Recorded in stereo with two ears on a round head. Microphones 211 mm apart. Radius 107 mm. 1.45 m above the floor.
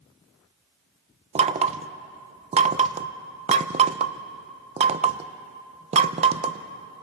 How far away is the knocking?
About 0.6 m.